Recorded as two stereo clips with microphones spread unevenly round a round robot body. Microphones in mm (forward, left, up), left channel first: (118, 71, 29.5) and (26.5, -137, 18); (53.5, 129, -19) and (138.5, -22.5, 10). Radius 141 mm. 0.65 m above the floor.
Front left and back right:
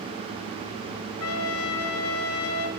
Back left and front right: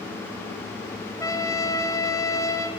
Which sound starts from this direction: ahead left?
A trumpet, at 1.2 s.